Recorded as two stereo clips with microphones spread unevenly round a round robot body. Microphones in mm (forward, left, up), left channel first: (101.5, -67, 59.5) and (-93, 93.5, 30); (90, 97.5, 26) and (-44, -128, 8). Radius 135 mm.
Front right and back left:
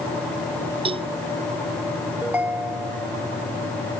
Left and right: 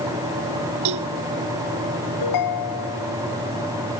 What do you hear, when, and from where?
0.8 s a cowbell: 150° right
2.2 s a ringtone: 55° left